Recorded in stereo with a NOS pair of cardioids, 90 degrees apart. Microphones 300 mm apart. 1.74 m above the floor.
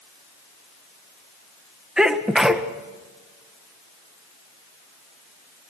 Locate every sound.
2.0 s a sneeze: straight ahead, 1.7 m